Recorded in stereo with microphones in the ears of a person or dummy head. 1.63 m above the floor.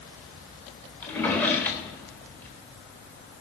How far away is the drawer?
About 1.5 m.